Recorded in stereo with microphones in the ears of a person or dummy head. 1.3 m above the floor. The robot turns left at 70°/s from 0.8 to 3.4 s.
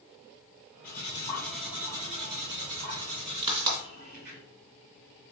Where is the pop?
30° right (ahead or behind), 1.8 m.